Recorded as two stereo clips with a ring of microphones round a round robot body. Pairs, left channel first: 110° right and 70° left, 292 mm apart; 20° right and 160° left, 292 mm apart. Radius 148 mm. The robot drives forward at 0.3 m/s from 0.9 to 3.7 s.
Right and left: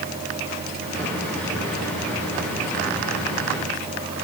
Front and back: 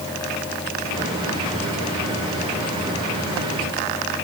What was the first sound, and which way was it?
Only background noise.